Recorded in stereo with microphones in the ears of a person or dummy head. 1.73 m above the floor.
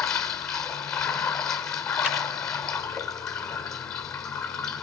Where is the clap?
10° left (ahead or behind), 6.5 m.